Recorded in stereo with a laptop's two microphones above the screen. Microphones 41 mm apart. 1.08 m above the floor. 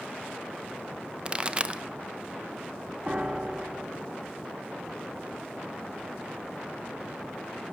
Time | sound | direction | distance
1.2 | a pop | 25° right (ahead or behind) | 0.5 m
3.1 | a piano | 30° right (ahead or behind) | 0.5 m